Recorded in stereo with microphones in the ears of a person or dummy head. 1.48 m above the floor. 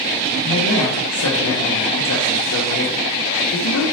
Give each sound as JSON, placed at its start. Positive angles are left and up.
{"t": 0.4, "sound": "a man speaking", "side_deg": 75, "distance_m": 1.0}